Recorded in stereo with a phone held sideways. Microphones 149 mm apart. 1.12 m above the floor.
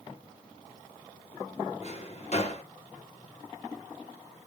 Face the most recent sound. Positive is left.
turn(degrees=45)  # may be behind; listen again after turning